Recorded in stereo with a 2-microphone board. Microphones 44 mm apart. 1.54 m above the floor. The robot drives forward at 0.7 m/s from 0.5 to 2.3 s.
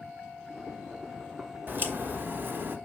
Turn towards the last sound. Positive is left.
turn(degrees=-50)  # may be behind; listen again after turning